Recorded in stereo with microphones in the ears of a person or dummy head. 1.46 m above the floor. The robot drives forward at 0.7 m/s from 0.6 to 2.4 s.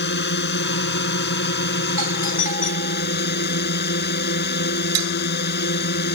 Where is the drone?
60° left (ahead or behind); by 6.2 s 55° left (ahead or behind).